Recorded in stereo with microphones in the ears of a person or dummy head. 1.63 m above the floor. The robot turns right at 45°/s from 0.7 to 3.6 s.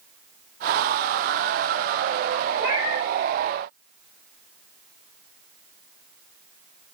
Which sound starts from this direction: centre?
A cat meowing, at 2.6 s.